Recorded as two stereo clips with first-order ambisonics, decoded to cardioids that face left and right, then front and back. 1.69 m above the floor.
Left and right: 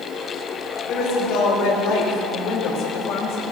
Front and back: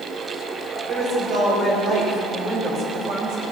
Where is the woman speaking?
130° left, 5.5 m; by 3.4 s 135° left, 3.5 m.